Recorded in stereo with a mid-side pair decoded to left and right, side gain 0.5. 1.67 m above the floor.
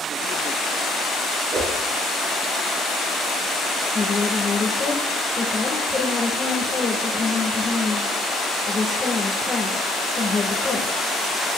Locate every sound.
1.5 s a whoosh: 60° right, 4.5 m
4.0 s a woman speaking: 30° left, 1.8 m